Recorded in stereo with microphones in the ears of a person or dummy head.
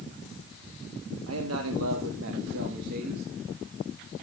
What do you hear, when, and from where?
1.3 s a man speaking: 80° right, 1.6 m; by 3.2 s 50° right (ahead or behind), 2 m